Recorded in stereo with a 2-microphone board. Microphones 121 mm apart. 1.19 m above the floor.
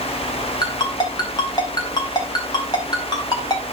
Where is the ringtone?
35° left (ahead or behind), 3.5 m.